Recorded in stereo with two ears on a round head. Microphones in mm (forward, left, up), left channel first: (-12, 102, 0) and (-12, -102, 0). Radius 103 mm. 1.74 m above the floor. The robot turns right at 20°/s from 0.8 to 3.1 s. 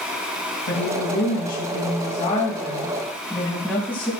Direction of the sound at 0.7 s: 125° left.